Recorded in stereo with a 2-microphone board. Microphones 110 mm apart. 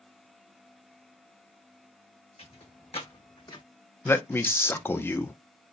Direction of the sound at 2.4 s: 65° left (ahead or behind).